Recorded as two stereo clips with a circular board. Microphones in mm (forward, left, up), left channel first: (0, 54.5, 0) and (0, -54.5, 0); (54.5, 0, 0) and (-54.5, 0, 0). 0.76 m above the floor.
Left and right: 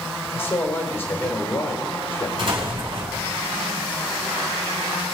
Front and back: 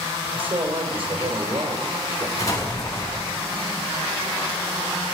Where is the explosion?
55° right, 4.5 m.